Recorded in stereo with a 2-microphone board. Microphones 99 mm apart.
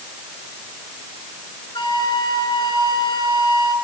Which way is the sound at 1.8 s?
50° left (ahead or behind).